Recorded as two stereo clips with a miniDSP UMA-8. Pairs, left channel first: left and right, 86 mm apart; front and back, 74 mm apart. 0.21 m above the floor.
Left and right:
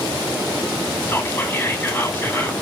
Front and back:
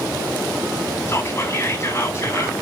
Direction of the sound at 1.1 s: 35° left.